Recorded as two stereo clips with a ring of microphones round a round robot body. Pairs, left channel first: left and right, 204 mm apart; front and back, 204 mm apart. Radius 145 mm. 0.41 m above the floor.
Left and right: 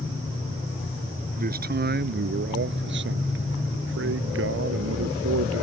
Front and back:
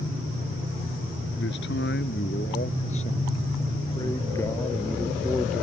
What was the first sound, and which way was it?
A man speaking, 50° right.